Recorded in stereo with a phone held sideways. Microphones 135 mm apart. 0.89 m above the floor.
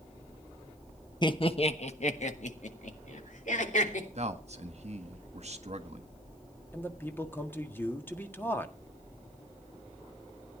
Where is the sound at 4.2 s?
55° right (ahead or behind), 1.5 m.